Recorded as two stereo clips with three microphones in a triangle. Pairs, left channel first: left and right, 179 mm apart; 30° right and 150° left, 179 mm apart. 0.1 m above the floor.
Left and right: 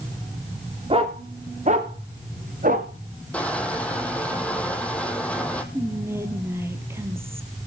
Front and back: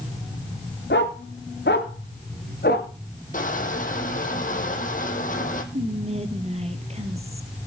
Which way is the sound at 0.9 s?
35° right.